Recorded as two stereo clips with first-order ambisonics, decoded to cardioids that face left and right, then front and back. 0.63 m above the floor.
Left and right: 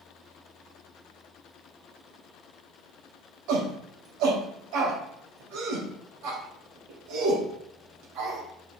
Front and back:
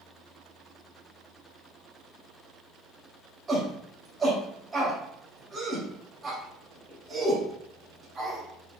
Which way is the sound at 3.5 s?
105° right.